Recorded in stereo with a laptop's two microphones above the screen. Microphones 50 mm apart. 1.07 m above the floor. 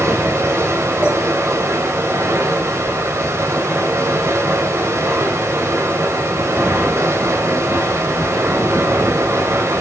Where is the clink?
30° right (ahead or behind), 4.5 m.